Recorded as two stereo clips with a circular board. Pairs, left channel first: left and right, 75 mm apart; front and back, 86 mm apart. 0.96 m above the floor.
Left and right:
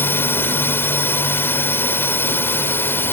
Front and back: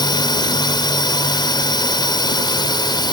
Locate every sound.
0.0 s a drone: 30° left